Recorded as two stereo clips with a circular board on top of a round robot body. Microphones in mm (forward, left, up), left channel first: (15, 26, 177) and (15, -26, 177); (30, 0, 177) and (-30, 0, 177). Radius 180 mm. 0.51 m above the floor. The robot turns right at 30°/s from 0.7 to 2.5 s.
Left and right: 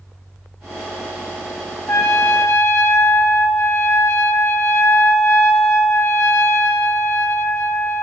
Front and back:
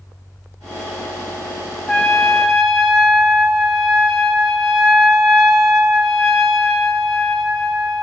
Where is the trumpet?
70° left, 1.8 m; by 8.0 s 90° left, 1.8 m.